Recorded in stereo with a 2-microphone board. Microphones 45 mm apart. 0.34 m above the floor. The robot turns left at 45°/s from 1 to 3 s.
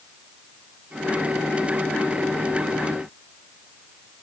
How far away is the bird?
I don't hear a bird.